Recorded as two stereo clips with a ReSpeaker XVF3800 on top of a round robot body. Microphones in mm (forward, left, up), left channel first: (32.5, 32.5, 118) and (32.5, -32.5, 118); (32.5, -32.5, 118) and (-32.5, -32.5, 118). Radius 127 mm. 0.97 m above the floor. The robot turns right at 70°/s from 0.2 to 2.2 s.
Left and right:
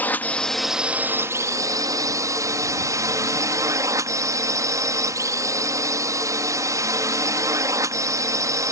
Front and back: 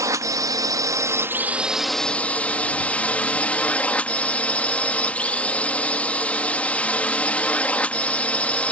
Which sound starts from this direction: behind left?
A drone, at 0.0 s.